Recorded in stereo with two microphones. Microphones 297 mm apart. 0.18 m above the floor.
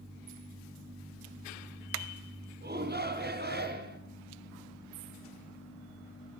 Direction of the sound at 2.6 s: 35° right (ahead or behind).